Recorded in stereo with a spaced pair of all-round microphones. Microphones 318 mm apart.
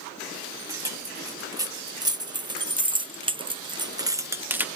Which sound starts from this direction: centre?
Keys jangling, at 0.7 s.